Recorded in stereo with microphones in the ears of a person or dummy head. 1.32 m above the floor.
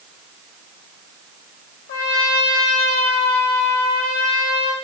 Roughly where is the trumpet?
Left.